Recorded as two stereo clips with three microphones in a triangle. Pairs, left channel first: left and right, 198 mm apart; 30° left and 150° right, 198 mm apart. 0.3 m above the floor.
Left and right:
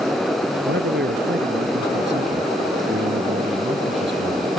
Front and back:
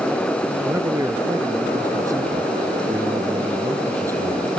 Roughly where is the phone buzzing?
I don't hear a phone buzzing.